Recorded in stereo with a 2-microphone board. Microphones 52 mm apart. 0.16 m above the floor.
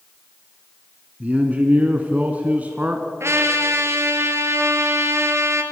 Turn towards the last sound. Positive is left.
turn(degrees=-60)  # may be behind; listen again after turning